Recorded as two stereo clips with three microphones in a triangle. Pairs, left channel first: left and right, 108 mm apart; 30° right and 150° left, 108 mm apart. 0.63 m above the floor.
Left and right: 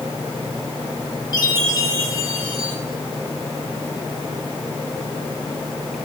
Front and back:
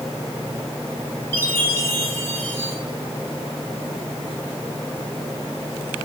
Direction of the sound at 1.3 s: 40° left.